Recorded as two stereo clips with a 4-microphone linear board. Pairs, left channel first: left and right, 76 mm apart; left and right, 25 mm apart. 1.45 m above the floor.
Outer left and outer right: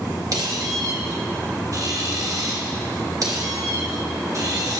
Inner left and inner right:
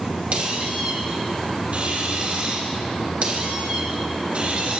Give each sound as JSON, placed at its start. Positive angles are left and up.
{"t": 0.3, "sound": "a squeak", "side_deg": -50, "distance_m": 1.3}